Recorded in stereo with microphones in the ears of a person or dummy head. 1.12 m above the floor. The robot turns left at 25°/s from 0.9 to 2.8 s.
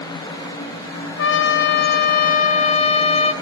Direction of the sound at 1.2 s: 70° left.